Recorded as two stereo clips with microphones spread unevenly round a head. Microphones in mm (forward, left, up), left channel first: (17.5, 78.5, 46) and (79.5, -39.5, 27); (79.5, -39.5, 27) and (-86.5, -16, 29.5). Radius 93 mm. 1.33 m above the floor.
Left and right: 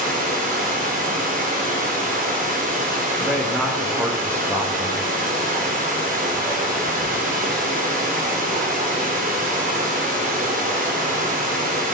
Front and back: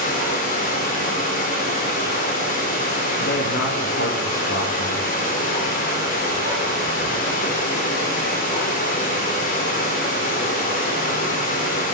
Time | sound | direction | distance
0.0 | running water | 45° right | 3 m
3.2 | a man speaking | 10° left | 2.5 m